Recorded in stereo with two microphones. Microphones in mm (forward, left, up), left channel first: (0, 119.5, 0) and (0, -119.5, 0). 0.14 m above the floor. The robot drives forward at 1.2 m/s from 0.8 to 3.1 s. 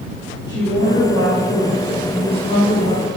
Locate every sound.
0.5 s a woman speaking: 15° left (ahead or behind), 3.5 m; by 3.1 s 30° left (ahead or behind), 1.8 m